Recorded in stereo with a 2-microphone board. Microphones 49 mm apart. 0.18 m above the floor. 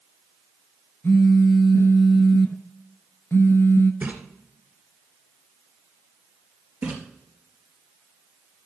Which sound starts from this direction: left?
A phone buzzing, at 1.0 s.